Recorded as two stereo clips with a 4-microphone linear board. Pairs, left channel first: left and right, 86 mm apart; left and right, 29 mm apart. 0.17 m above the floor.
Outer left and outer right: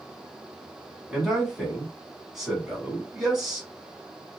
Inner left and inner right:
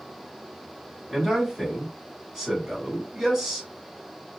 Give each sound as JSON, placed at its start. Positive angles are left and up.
{"t": 1.1, "sound": "a man speaking", "side_deg": -5, "distance_m": 1.5}